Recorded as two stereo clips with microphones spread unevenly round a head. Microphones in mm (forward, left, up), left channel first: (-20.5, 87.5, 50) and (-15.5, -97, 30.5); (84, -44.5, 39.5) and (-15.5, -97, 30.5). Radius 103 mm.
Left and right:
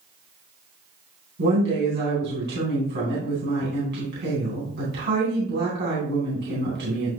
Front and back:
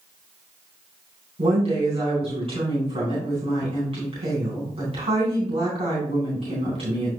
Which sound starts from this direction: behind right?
A woman speaking, at 1.4 s.